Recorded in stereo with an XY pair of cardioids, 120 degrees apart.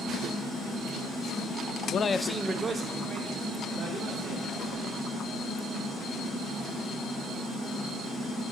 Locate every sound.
1.9 s a man speaking: 55° left, 0.6 m; by 5.0 s 45° right, 5 m